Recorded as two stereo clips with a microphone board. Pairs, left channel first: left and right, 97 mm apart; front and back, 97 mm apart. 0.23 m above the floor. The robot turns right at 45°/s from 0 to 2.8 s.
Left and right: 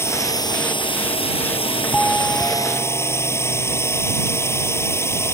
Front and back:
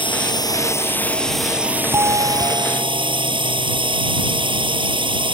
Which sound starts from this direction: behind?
A doorbell, at 1.9 s.